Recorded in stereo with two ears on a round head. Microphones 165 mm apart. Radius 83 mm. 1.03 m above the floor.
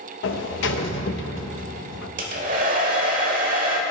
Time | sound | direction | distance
0.2 | a sliding door | 70° left (ahead or behind) | 0.7 m
2.2 | a hair dryer | 45° right (ahead or behind) | 1.3 m